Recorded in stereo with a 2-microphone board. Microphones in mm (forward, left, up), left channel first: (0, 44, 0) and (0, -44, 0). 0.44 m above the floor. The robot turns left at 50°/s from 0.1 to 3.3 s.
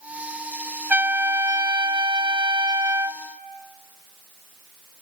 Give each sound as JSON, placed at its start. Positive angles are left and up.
{"t": 0.9, "sound": "a trumpet", "azimuth_deg": -25, "distance_m": 0.7}